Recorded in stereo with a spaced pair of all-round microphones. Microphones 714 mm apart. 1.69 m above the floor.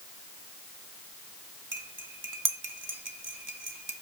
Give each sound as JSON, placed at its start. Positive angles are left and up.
{"t": 1.7, "sound": "cutlery clinking", "side_deg": -25, "distance_m": 1.0}